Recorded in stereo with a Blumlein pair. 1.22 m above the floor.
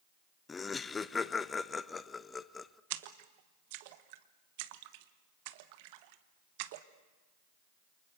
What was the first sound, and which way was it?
Laughter, 15° left.